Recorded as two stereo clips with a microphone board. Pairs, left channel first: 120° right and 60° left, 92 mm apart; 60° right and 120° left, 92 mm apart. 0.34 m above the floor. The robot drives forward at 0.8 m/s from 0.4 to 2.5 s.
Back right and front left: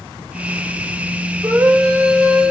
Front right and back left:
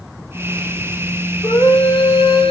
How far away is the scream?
About 4 m.